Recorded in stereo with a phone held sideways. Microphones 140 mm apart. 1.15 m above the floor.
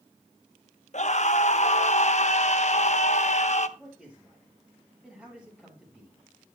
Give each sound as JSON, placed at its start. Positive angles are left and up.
{"t": 0.9, "sound": "a scream", "side_deg": 55, "distance_m": 0.9}
{"t": 3.8, "sound": "a man speaking", "side_deg": -10, "distance_m": 7.5}